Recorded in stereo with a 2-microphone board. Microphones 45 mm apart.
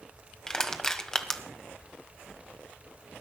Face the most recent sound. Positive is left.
turn(degrees=15)  # may be behind; listen again after turning